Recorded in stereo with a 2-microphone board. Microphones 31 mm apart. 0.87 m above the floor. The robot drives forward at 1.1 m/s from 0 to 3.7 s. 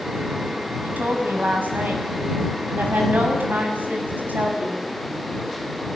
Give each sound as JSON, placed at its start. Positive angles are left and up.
{"t": 0.8, "sound": "a woman speaking", "side_deg": -70, "distance_m": 5.5}